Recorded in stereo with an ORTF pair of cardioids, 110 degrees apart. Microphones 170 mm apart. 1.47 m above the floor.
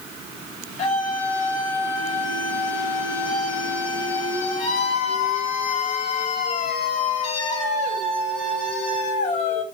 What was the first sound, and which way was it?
A scream, 45° left.